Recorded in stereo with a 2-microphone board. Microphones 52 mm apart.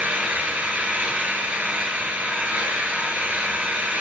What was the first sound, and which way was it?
An engine running, 30° right (ahead or behind).